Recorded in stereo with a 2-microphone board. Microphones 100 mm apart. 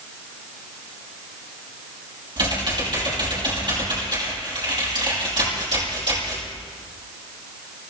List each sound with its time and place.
2.4 s typing on a keyboard: 50° right (ahead or behind), 6 m